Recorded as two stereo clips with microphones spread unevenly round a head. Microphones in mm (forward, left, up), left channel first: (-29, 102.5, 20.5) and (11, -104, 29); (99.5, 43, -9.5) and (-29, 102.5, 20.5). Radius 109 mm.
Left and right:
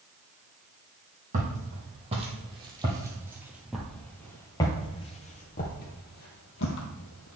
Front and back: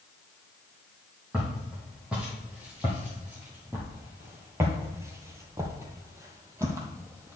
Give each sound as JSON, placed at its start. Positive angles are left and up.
{"t": 1.3, "sound": "footsteps", "azimuth_deg": -125, "distance_m": 2.0}